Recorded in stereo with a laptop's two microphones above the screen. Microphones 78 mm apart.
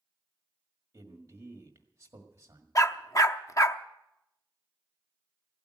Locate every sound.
0.9 s a man speaking: 40° right (ahead or behind), 1.6 m
2.8 s a dog barking: 45° left (ahead or behind), 0.7 m